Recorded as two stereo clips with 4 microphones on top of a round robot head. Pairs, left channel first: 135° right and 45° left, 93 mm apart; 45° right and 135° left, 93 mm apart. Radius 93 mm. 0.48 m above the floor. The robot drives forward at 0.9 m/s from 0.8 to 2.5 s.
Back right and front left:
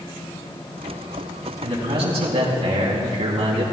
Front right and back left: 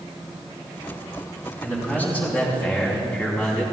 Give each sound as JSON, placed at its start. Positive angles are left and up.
{"t": 1.6, "sound": "a man speaking", "azimuth_deg": 25, "distance_m": 4.5}